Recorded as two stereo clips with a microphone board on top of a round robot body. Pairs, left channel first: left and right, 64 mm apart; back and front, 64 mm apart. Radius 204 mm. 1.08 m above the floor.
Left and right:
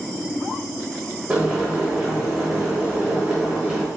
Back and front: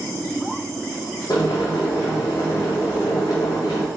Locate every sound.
1.3 s boiling: 165° right, 1.2 m